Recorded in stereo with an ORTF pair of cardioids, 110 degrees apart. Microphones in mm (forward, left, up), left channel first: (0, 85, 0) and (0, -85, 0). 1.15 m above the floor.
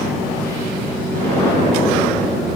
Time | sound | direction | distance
1.1 | an explosion | 55° right | 4 m